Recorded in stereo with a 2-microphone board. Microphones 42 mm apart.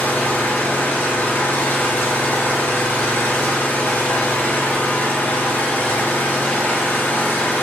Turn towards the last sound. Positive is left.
turn(degrees=55)  # may be behind; listen again after turning